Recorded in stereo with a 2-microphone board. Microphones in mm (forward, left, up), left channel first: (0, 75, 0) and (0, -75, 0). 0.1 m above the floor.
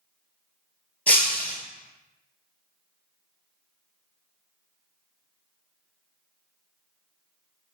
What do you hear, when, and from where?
1.1 s breaking glass: 10° left (ahead or behind), 0.5 m